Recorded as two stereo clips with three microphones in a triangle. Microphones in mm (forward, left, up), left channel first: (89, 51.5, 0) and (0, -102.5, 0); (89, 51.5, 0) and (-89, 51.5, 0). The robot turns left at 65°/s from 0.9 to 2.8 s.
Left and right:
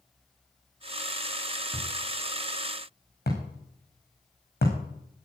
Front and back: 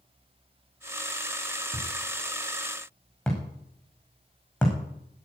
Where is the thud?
155° left, 6.5 m; by 5.3 s 85° left, 6.5 m.